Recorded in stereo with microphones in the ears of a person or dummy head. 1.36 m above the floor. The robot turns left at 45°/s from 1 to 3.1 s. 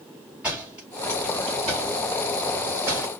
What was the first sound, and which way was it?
A door slam, 10° right (ahead or behind).